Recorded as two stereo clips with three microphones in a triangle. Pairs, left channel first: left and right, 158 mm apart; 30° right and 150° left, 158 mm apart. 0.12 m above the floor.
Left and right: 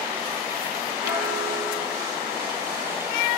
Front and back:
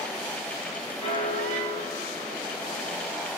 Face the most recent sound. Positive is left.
turn(degrees=-20)